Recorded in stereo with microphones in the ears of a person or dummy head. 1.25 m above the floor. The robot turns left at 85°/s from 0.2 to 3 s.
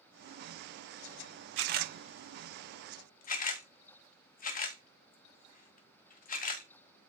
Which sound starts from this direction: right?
A camera shutter, at 1.6 s.